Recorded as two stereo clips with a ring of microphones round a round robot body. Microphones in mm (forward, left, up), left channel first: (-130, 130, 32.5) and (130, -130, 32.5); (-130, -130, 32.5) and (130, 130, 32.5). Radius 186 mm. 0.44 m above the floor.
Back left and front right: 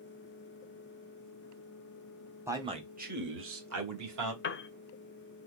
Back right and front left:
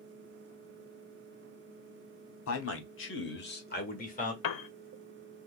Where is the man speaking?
125° right, 1.3 m; by 4.3 s 70° right, 1.9 m.